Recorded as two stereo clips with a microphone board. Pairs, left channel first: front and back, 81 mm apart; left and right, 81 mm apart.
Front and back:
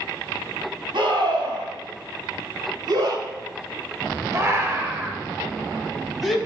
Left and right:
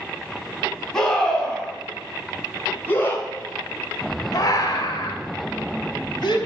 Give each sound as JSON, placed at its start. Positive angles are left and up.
{"t": 0.9, "sound": "a scream", "azimuth_deg": 175, "distance_m": 4.0}